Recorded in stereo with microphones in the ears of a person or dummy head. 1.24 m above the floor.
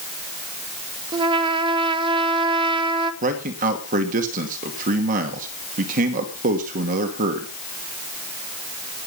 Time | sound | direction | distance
1.1 | a trumpet | 30° right (ahead or behind) | 1.3 m
3.2 | a man speaking | 50° right (ahead or behind) | 2 m